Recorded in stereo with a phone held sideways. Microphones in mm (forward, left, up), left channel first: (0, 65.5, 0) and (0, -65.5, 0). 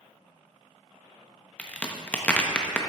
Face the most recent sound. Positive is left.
turn(degrees=10)  # may be behind; listen again after turning